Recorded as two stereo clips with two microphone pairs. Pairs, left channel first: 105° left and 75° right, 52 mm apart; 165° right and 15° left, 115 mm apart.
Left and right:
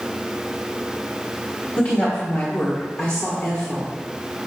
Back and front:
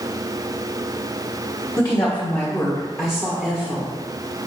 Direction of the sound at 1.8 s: 140° left.